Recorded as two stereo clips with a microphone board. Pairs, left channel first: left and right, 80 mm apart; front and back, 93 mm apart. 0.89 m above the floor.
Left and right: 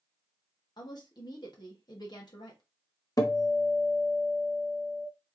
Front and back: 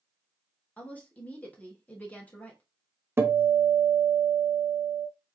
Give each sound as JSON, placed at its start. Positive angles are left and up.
{"t": 0.8, "sound": "a woman speaking", "azimuth_deg": 70, "distance_m": 1.5}
{"t": 3.2, "sound": "a guitar", "azimuth_deg": 120, "distance_m": 0.9}